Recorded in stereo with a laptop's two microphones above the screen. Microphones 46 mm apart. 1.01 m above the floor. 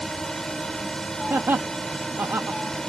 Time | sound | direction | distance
0.0 | a drone | 10° left (ahead or behind) | ?
1.3 | laughter | 65° right (ahead or behind) | ?